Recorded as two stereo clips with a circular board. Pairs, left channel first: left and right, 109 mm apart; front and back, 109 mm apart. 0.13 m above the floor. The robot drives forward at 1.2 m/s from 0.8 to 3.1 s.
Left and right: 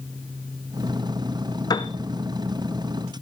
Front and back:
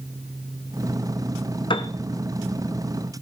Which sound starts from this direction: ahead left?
A piano, at 1.7 s.